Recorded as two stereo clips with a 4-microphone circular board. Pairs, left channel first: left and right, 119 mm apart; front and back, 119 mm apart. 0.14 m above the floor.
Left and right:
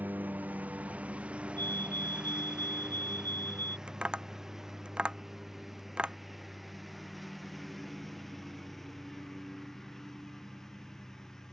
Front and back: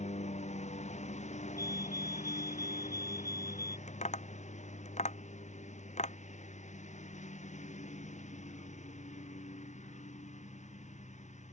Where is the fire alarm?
145° left.